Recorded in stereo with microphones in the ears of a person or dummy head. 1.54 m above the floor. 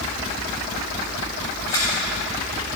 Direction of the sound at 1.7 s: 25° left (ahead or behind).